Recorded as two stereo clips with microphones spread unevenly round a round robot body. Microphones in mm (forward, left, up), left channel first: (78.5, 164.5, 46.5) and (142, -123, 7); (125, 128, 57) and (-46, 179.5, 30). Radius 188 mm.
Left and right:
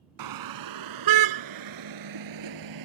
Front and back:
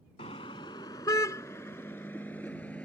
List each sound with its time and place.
0.2 s a car horn: 90° right; by 2.9 s 105° right